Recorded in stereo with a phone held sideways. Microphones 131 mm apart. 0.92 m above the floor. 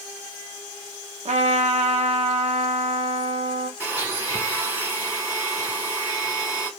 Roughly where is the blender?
Centre.